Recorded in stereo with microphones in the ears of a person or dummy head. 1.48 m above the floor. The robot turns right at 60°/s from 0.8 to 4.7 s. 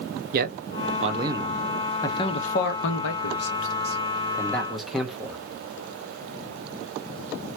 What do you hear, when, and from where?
0.3 s a man speaking: 50° right (ahead or behind), 0.6 m; by 5.4 s centre (ahead or behind), 0.6 m